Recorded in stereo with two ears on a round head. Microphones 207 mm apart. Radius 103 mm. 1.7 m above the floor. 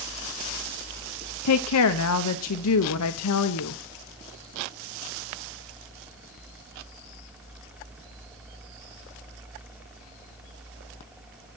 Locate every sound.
1.4 s a woman speaking: 70° left (ahead or behind), 0.8 m